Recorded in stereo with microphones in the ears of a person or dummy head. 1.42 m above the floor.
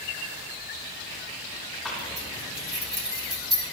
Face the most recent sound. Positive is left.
turn(degrees=-5)  # may be behind; listen again after turning